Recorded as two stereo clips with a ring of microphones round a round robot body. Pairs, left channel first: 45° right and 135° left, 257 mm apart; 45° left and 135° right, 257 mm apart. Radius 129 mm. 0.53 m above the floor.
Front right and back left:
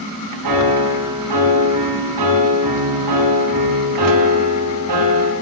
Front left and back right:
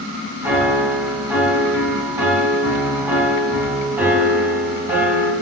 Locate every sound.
0.4 s a piano: 145° left, 4.5 m